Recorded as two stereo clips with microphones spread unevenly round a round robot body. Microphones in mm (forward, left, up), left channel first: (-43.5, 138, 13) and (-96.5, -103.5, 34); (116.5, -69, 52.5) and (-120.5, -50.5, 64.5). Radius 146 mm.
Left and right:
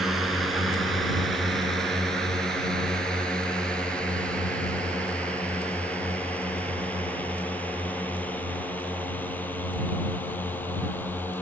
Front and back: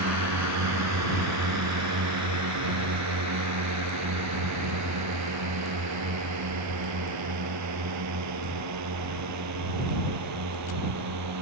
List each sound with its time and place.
0.0 s a drone: 170° left; by 11.4 s 160° left